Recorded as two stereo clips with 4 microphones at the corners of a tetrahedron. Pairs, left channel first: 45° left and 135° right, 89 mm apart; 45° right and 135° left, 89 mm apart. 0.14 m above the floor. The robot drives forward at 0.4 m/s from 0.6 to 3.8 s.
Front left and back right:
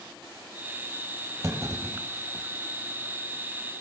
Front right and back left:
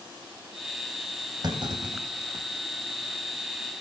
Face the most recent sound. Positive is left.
turn(degrees=175)